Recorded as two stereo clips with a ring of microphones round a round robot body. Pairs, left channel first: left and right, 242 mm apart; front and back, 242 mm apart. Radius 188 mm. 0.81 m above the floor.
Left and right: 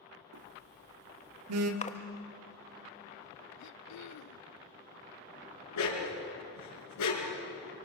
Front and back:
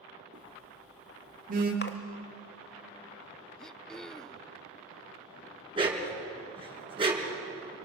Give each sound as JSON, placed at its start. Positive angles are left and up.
{"t": 0.3, "sound": "a phone buzzing", "azimuth_deg": -115, "distance_m": 1.4}
{"t": 1.8, "sound": "a splash", "azimuth_deg": 35, "distance_m": 1.7}
{"t": 3.6, "sound": "throat clearing", "azimuth_deg": 90, "distance_m": 0.7}
{"t": 5.8, "sound": "a dog barking", "azimuth_deg": 110, "distance_m": 5.0}